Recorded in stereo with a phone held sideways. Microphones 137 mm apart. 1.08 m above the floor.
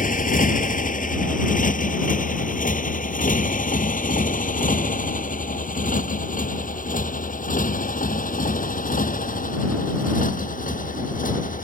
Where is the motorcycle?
75° left (ahead or behind); by 11.6 s 80° left.